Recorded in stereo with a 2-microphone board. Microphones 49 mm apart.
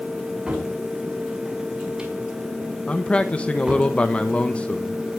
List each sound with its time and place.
0.5 s a cupboard door: 15° right (ahead or behind), 5.5 m
2.9 s a man speaking: 25° left (ahead or behind), 1.2 m